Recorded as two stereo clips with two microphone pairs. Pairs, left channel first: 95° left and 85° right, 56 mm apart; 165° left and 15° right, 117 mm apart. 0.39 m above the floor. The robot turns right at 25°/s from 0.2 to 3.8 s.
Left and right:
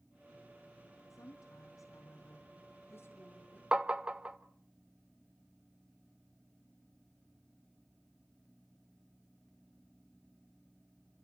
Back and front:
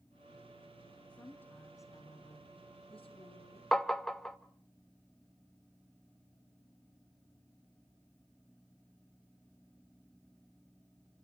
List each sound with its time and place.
1.1 s a woman speaking: 85° left, 3 m; by 3.6 s 150° left, 3 m
3.7 s tapping: 120° right, 0.9 m